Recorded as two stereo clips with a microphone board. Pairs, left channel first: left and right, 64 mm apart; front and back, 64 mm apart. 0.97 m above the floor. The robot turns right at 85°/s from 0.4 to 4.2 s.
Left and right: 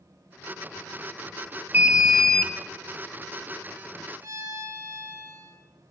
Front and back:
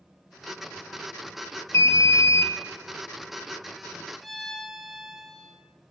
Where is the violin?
90° right, 1.3 m.